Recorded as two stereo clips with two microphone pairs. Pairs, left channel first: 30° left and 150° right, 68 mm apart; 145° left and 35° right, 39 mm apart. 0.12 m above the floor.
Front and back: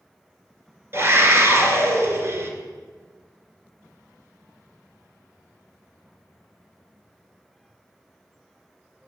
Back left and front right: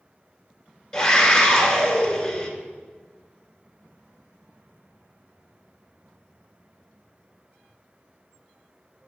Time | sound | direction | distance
0.9 | a scream | 150° right | 1.5 m